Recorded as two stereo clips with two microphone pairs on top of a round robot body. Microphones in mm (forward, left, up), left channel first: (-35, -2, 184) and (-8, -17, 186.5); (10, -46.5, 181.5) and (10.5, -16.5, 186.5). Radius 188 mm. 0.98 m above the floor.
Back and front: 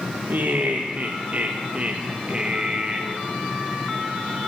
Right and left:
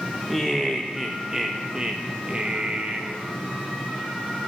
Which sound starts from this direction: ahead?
Laughter, at 0.3 s.